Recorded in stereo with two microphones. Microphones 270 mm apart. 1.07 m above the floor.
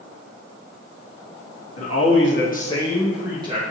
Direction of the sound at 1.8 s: 65° left (ahead or behind).